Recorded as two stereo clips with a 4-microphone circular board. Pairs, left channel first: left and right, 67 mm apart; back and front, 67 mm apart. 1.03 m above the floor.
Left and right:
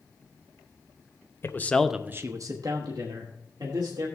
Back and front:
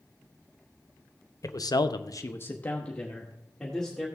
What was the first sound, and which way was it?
A man speaking, 140° left.